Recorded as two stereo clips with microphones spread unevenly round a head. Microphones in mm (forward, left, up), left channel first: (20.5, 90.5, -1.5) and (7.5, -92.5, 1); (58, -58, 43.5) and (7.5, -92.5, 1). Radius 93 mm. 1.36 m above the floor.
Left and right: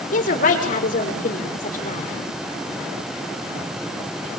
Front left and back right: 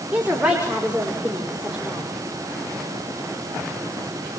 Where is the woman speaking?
135° left, 5.5 m.